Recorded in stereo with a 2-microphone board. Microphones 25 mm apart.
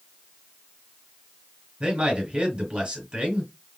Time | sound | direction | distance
1.8 | a man speaking | 40° right (ahead or behind) | 2 m